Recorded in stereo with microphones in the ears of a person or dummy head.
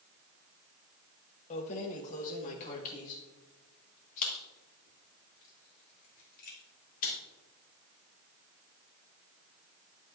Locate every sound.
1.5 s keys jangling: 35° left (ahead or behind), 1.1 m; by 7.2 s 45° left (ahead or behind), 4.5 m